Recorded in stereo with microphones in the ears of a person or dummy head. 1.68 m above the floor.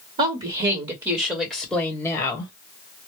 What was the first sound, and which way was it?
A woman speaking, 40° right (ahead or behind).